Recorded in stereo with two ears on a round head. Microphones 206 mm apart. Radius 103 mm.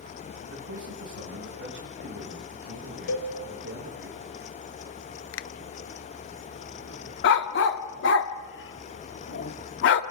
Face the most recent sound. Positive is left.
turn(degrees=55)  # may be behind; listen again after turning